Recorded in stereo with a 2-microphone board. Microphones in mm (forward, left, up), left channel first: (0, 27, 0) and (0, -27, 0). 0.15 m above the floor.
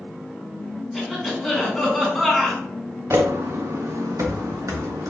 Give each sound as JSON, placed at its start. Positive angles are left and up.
{"t": 0.9, "sound": "a cough", "side_deg": 0, "distance_m": 1.6}
{"t": 3.1, "sound": "footsteps", "side_deg": -55, "distance_m": 0.6}